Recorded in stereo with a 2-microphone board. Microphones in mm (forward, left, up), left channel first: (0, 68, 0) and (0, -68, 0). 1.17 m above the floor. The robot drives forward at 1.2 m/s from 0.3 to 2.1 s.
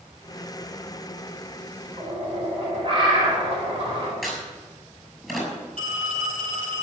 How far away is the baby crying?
I don't hear a baby crying.